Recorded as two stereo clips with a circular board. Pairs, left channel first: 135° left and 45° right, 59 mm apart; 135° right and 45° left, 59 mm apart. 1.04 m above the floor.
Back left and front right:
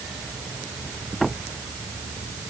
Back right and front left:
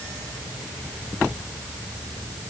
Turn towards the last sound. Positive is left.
No sound to turn to.